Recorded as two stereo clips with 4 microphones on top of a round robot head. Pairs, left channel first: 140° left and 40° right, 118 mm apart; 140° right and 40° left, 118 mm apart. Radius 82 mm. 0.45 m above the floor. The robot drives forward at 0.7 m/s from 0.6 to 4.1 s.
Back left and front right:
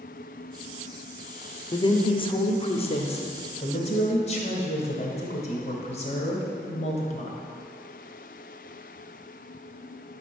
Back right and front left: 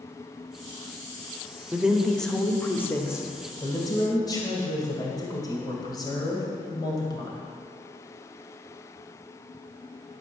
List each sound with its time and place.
1.7 s a woman speaking: 115° left, 1.0 m; by 7.4 s 165° left, 2 m